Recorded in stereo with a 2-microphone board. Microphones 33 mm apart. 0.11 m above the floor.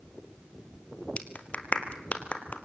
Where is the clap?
40° left (ahead or behind), 2.5 m.